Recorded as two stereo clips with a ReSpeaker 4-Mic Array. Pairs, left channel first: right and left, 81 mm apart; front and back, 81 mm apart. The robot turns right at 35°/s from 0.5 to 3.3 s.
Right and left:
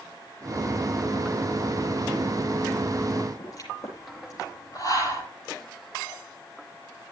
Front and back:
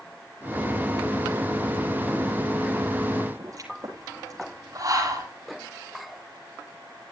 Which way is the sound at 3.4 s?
135° right.